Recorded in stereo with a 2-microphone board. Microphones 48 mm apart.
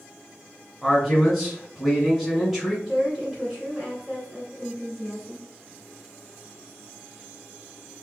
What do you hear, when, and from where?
0.8 s a man speaking: centre (ahead or behind), 1.9 m
2.9 s a woman speaking: 20° right (ahead or behind), 2 m